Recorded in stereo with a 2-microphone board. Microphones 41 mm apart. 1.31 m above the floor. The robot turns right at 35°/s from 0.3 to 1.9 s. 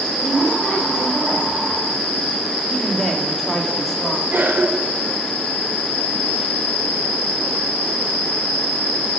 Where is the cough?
55° right (ahead or behind), 4.5 m.